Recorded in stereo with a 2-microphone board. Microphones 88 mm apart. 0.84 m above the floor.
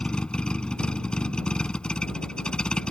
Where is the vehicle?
10° left (ahead or behind).